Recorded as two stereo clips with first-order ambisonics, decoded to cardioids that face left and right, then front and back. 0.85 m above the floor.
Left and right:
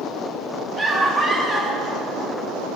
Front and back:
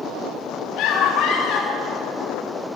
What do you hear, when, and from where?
0.8 s a scream: 25° right, 1.6 m